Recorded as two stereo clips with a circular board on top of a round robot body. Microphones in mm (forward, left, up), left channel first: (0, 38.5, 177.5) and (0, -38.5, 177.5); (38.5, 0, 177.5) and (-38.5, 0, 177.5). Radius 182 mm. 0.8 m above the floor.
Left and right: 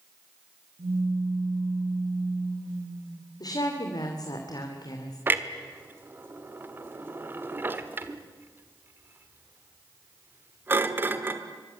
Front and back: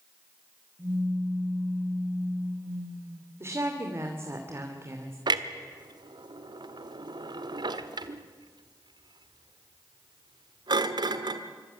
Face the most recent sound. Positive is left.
turn(degrees=-155)